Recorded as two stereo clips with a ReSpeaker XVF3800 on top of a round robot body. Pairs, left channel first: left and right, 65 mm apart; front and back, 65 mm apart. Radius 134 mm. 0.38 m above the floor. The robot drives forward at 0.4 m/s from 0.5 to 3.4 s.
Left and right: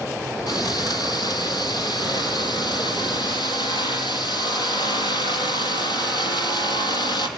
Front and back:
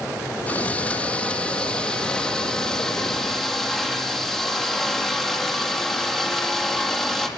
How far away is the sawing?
About 3.5 m.